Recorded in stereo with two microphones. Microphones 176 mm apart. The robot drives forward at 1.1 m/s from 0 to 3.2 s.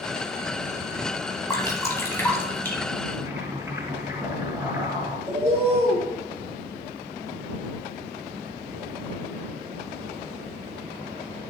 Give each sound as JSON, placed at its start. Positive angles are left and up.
{"t": 1.5, "sound": "dripping", "side_deg": 20, "distance_m": 1.5}
{"t": 3.2, "sound": "boiling", "side_deg": -15, "distance_m": 2.5}
{"t": 5.3, "sound": "a bird", "side_deg": 60, "distance_m": 3.5}